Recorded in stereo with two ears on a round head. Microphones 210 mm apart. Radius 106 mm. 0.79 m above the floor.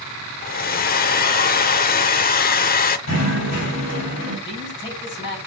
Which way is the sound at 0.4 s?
40° left (ahead or behind).